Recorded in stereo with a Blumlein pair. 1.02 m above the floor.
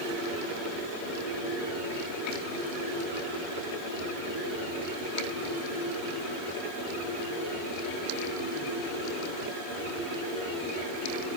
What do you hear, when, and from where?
Only background noise.